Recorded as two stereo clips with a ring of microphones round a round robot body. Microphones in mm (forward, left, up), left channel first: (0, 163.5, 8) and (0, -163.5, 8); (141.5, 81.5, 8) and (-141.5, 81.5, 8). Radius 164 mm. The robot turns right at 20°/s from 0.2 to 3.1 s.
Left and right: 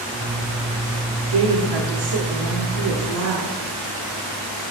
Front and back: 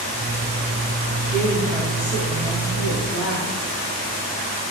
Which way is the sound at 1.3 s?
95° right.